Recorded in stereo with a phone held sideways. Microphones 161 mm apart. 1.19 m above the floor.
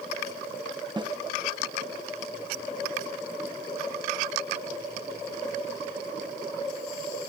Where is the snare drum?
30° right (ahead or behind).